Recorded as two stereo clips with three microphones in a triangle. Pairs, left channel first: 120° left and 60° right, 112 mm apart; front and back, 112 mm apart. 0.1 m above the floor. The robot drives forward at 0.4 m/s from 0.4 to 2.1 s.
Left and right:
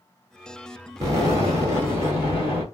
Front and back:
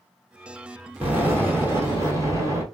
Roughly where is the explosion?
Right.